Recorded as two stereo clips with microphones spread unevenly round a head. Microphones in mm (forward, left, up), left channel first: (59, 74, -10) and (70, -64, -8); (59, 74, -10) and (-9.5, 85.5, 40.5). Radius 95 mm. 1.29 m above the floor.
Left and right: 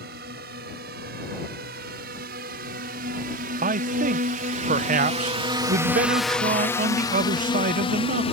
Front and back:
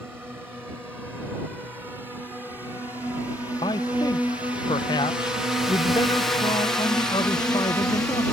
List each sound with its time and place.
0.0 s a drone: 105° right; by 8.3 s 55° left
3.6 s a man speaking: 55° right